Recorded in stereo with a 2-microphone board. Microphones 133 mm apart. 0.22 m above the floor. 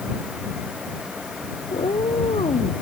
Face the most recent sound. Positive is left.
turn(degrees=50)  # may be behind; listen again after turning